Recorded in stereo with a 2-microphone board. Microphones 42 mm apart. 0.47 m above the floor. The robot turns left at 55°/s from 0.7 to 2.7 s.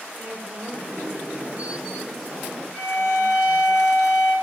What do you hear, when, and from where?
0.1 s a woman speaking: 100° right, 2 m; by 3.7 s 150° left, 2 m
2.7 s a violin: 20° right (ahead or behind), 1.0 m